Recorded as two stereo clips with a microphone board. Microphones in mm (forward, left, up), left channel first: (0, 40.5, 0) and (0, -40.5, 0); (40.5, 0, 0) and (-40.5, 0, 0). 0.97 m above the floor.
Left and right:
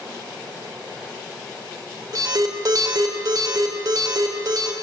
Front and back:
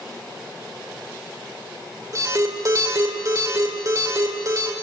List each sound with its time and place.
2.1 s an alarm: 130° right, 3.5 m